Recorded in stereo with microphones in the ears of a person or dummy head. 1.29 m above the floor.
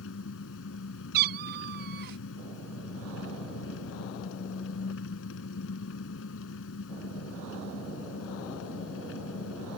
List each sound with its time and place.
0.0 s an engine running: 85° left
1.1 s a cat meowing: 55° right (ahead or behind)